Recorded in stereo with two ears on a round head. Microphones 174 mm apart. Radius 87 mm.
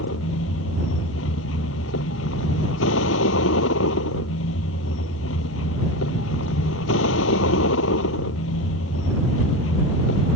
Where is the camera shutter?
I don't hear a camera shutter.